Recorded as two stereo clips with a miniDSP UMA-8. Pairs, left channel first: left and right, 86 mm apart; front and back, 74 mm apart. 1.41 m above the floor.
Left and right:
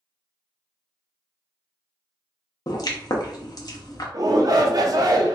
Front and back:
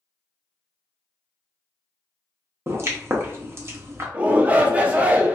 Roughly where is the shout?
Behind right.